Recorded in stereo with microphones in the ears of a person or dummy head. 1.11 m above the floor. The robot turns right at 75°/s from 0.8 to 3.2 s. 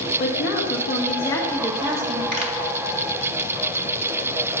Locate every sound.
0.2 s a woman speaking: 125° left, 1.3 m; by 2.2 s 130° right, 1.3 m
2.3 s a pop: 50° right (ahead or behind), 1.7 m; by 2.5 s 35° right (ahead or behind), 1.7 m